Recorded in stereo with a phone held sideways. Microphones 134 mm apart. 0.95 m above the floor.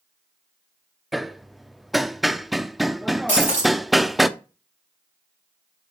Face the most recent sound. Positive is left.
turn(degrees=70)  # may be behind; listen again after turning